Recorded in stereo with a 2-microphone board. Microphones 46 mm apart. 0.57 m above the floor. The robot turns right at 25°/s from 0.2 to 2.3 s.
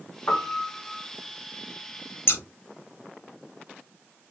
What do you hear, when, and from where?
0.3 s a piano: 50° left (ahead or behind), 1.1 m; by 1.1 s 40° left (ahead or behind), 1.1 m
2.3 s scissors: 55° left (ahead or behind), 1.1 m